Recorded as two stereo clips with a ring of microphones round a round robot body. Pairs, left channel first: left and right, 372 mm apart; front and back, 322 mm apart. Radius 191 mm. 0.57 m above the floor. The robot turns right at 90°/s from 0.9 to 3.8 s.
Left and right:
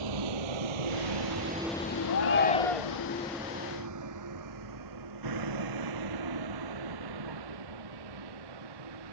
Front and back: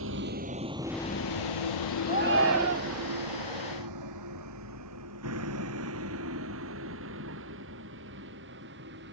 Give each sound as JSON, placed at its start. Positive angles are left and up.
{"t": 0.0, "sound": "a vehicle", "azimuth_deg": -120}
{"t": 2.1, "sound": "a shout", "azimuth_deg": 120}